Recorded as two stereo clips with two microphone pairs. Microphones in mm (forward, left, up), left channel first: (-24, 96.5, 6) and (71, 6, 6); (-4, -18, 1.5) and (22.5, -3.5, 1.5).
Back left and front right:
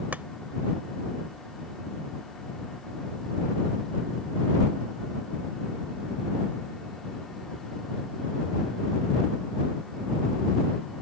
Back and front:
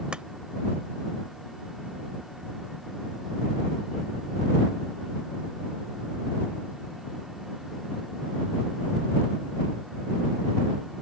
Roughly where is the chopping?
Ahead left.